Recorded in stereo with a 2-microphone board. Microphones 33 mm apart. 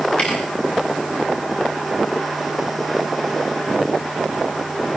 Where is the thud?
30° left (ahead or behind), 7.5 m.